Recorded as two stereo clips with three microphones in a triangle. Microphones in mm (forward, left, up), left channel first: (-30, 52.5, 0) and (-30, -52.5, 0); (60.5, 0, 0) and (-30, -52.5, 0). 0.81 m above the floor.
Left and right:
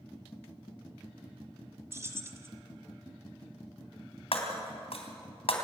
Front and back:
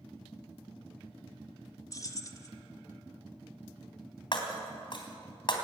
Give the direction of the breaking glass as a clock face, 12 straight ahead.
10 o'clock.